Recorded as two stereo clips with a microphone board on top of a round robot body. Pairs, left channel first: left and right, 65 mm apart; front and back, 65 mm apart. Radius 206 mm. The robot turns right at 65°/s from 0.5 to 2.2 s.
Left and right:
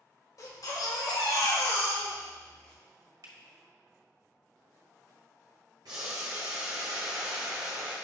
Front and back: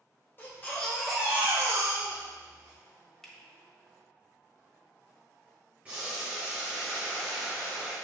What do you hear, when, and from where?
0.4 s a baby crying: 55° left, 1.1 m; by 2.8 s 165° left, 1.1 m
3.2 s a finger snap: 85° right, 1.4 m
5.8 s boiling: 115° right, 0.7 m